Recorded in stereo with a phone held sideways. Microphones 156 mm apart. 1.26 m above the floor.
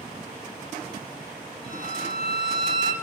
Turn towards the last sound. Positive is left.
turn(degrees=-75)  # may be behind; listen again after turning